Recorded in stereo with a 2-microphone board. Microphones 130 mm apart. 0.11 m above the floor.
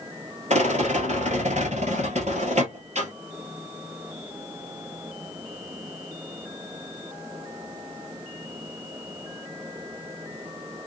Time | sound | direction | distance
0.5 | a rattle | 60° right (ahead or behind) | 1.3 m